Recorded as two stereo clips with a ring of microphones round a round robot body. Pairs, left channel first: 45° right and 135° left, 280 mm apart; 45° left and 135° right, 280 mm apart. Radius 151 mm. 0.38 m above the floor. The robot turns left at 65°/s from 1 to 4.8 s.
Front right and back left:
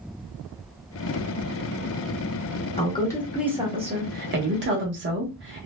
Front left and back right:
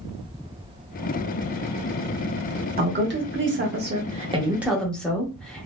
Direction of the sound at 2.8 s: 100° right.